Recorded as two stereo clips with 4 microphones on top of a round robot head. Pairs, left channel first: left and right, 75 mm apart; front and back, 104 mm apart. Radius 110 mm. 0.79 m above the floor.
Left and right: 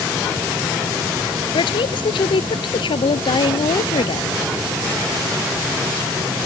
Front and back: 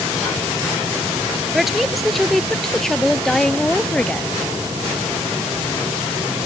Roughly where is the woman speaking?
Left.